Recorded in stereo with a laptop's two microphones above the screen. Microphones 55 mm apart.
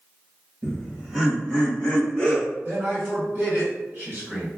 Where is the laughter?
20° right (ahead or behind), 0.7 m; by 2.5 s 25° left (ahead or behind), 1.3 m.